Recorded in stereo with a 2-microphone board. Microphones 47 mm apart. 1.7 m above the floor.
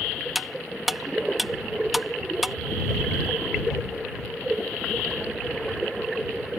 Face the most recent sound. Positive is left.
turn(degrees=-5)  # may be behind; listen again after turning